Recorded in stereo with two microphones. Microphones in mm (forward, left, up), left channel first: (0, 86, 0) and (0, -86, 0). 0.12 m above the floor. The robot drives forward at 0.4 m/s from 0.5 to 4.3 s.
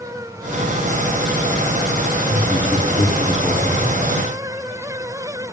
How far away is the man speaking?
About 1.2 m.